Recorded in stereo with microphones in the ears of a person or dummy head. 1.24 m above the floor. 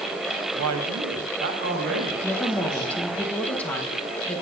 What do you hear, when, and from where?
0.6 s a man speaking: 85° right, 1.1 m; by 3.1 s 50° right (ahead or behind), 4.5 m
2.2 s a woman speaking: 5° left (ahead or behind), 1.4 m